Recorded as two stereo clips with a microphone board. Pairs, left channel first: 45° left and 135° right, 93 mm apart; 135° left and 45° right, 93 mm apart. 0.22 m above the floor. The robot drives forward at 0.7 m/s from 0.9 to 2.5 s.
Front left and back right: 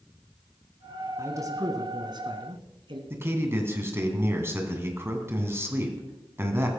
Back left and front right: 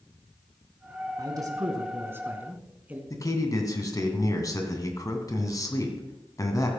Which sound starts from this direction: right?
A man speaking, at 1.2 s.